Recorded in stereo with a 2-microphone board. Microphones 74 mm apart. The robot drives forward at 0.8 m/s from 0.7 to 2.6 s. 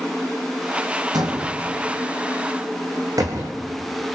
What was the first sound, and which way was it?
A door slam, 65° right (ahead or behind).